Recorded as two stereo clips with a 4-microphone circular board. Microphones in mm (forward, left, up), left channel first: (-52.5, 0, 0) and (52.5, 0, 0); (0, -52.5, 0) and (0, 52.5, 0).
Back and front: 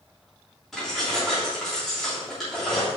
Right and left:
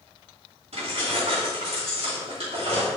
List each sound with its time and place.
0.7 s keys jangling: 90° left, 3 m